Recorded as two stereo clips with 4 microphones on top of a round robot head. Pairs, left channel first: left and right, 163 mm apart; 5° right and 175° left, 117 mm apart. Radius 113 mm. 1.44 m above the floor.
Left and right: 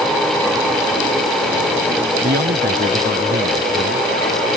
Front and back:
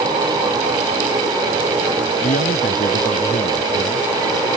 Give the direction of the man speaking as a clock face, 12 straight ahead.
1 o'clock.